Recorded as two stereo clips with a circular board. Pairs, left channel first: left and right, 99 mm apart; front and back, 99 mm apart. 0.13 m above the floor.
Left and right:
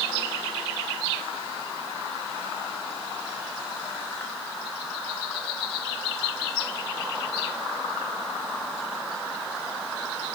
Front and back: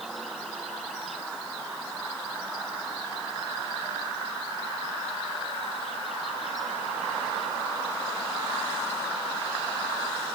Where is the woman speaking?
I don't hear a woman speaking.